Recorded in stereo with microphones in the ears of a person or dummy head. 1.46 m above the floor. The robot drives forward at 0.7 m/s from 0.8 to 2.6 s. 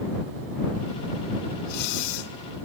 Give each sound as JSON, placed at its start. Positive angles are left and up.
{"t": 1.6, "sound": "breathing", "side_deg": 45, "distance_m": 0.7}